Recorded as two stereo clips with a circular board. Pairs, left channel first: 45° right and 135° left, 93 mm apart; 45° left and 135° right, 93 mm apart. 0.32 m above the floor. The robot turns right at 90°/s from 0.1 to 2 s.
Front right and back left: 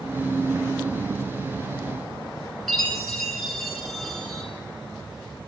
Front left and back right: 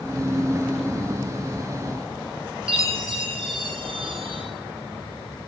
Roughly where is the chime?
Behind right.